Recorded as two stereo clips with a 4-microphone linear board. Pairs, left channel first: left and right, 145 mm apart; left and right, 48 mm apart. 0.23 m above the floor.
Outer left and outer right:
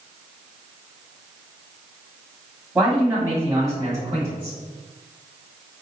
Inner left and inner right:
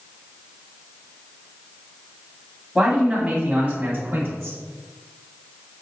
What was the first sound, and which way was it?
A man speaking, 5° right (ahead or behind).